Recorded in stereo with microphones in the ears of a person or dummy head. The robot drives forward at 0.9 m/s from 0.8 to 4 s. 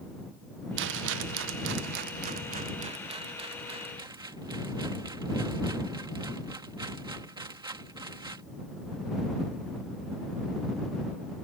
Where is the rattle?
70° right (ahead or behind); by 8.4 s 25° right (ahead or behind).